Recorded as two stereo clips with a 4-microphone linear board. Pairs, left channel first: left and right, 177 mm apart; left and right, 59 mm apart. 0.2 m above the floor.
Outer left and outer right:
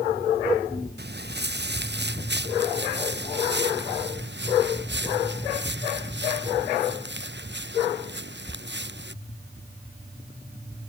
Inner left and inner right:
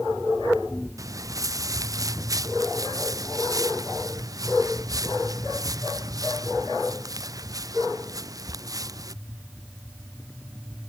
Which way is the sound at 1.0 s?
70° right (ahead or behind).